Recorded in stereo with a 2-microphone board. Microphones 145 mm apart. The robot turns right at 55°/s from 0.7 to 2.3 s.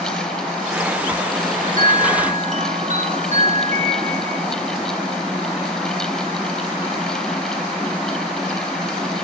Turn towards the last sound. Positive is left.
turn(degrees=-65)